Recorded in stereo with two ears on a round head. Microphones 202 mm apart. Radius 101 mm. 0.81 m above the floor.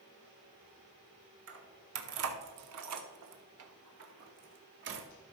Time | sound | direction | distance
1.5 | keys jangling | 55° right (ahead or behind) | 1.6 m